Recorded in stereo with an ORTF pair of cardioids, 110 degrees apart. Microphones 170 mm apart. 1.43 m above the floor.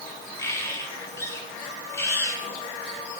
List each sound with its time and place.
0.4 s a bird: 15° left, 4.5 m